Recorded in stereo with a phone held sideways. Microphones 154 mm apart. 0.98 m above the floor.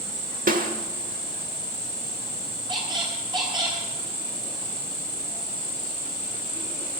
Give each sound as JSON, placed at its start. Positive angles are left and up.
{"t": 0.5, "sound": "a snare drum", "side_deg": -65, "distance_m": 1.3}
{"t": 2.7, "sound": "a squeak", "side_deg": -30, "distance_m": 4.0}